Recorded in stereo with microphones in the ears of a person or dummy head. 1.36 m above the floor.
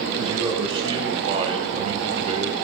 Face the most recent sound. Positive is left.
turn(degrees=-40)  # may be behind; listen again after turning